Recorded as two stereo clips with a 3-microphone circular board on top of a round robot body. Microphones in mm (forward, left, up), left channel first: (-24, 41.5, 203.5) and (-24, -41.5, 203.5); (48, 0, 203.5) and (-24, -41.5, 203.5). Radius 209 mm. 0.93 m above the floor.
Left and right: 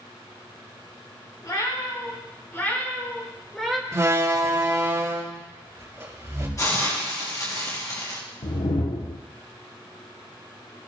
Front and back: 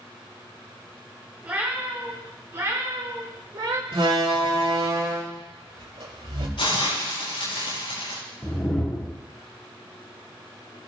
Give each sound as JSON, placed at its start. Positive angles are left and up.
{"t": 1.4, "sound": "a cat meowing", "azimuth_deg": 135, "distance_m": 5.0}
{"t": 3.9, "sound": "a door slam", "azimuth_deg": -150, "distance_m": 4.0}
{"t": 6.6, "sound": "a hiss", "azimuth_deg": 35, "distance_m": 6.5}
{"t": 8.4, "sound": "a whoosh", "azimuth_deg": 110, "distance_m": 1.2}